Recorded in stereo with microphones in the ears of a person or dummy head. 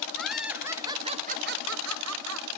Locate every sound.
0.2 s laughter: centre (ahead or behind), 1.4 m; by 2.5 s 80° right, 1.3 m